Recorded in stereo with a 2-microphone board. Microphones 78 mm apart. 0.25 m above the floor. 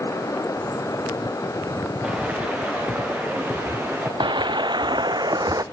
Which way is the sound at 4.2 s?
80° right.